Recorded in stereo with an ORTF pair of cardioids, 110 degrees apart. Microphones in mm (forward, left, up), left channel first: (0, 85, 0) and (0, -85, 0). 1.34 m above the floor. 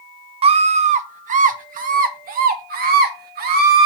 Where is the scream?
35° right, 0.9 m; by 3.9 s 65° right, 3 m.